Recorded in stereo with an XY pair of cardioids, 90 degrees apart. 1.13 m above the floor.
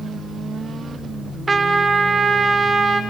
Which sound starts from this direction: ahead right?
A trumpet, at 1.5 s.